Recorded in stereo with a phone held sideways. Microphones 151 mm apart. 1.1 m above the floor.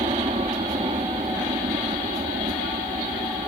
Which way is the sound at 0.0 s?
45° right (ahead or behind).